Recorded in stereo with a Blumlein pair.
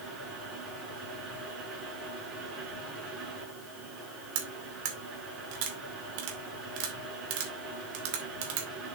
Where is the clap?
I don't hear a clap.